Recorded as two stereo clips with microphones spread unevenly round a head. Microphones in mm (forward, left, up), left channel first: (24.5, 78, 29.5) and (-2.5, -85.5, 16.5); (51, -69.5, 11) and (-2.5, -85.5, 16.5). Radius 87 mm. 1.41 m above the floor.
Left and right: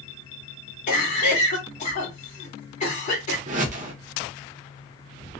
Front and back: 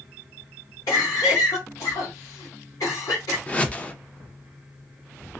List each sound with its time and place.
0.9 s a cough: 35° left, 1.4 m
3.5 s a whoosh: 55° right, 0.6 m